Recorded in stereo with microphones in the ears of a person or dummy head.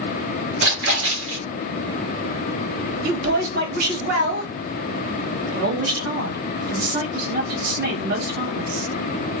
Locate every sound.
0.6 s a splash: 65° right (ahead or behind), 1.1 m
3.0 s a woman speaking: 55° right (ahead or behind), 1.3 m